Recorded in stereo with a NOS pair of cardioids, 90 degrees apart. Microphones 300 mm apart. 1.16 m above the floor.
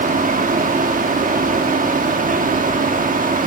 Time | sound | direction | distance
0.0 | a fan | 30° right | 1.4 m